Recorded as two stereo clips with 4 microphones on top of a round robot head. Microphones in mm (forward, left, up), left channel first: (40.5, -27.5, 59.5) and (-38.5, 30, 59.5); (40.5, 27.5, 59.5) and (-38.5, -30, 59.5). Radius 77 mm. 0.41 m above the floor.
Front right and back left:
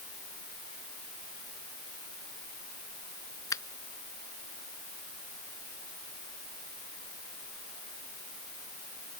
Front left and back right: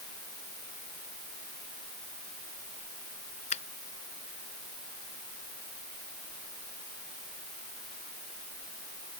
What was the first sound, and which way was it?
A finger snap, 25° left.